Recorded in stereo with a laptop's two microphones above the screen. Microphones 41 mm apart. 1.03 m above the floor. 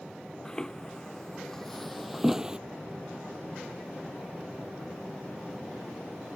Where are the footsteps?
15° left (ahead or behind); by 2.6 s 25° right (ahead or behind).